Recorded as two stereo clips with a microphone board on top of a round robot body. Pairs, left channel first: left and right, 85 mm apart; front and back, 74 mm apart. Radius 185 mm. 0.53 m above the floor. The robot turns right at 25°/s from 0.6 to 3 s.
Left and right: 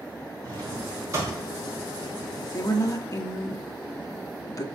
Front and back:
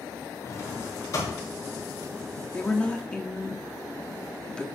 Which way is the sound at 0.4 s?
50° right.